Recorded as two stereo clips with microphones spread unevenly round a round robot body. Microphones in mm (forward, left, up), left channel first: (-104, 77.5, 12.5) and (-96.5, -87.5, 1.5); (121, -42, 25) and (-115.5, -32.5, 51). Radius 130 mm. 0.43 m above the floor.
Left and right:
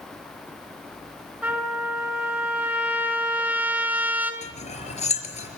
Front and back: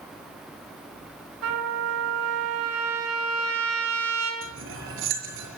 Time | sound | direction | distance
1.4 | a trumpet | 165° right | 5.5 m
4.4 | cutlery clinking | 135° left | 5.5 m